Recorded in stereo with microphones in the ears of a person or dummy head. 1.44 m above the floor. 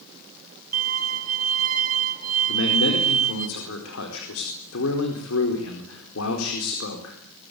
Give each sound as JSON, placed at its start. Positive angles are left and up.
{"t": 0.7, "sound": "a violin", "side_deg": -45, "distance_m": 3.5}
{"t": 2.5, "sound": "a man speaking", "side_deg": 85, "distance_m": 4.5}